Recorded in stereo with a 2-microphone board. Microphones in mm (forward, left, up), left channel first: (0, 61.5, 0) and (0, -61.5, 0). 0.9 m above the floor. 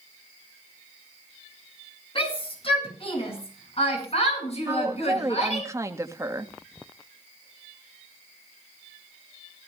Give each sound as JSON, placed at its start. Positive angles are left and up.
{"t": 2.1, "sound": "a shout", "side_deg": 45, "distance_m": 8.5}
{"t": 4.7, "sound": "a woman speaking", "side_deg": -25, "distance_m": 1.7}